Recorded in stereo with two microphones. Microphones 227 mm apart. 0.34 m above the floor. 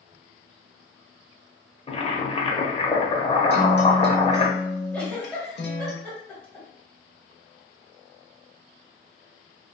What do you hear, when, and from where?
1.9 s boiling: 25° left (ahead or behind), 0.5 m
3.5 s a guitar: 50° left (ahead or behind), 0.7 m
4.9 s a giggle: 5° left (ahead or behind), 0.9 m